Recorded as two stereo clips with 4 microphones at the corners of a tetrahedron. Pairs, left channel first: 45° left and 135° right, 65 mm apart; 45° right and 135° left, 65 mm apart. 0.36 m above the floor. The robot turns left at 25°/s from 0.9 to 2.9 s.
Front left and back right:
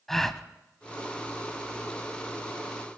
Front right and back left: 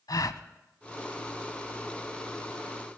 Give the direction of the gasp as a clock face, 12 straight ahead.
1 o'clock.